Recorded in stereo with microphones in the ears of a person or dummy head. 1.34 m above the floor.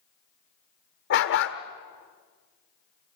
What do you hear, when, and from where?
1.1 s a dog barking: 55° left (ahead or behind), 1.8 m